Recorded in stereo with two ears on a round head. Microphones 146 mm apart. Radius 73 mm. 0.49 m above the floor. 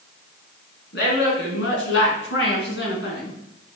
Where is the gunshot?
No gunshot in this recording.